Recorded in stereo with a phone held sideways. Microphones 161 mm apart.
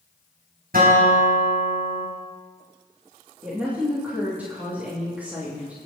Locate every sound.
0.7 s a guitar: 70° right (ahead or behind), 7 m
3.4 s a woman speaking: 10° right (ahead or behind), 3 m